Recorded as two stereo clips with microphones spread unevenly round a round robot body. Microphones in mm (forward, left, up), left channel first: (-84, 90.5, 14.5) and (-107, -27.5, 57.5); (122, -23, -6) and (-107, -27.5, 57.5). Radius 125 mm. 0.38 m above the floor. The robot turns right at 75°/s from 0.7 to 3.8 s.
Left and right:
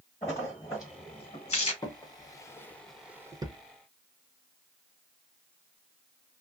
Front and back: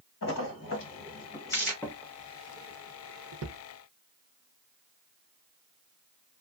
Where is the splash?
15° left, 1.4 m; by 1.7 s 90° left, 1.4 m.